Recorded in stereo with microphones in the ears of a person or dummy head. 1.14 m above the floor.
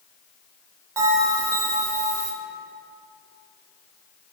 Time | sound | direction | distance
1.0 | a bell | 20° right (ahead or behind) | 2.5 m